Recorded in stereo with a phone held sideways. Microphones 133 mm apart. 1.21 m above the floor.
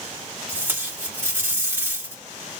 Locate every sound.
0.5 s tape being pulled: 15° right (ahead or behind), 2 m